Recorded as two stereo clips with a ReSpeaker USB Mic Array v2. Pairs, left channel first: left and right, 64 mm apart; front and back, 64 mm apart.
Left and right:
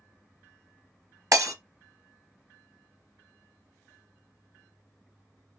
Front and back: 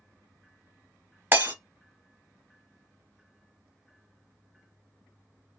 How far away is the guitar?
I don't hear a guitar.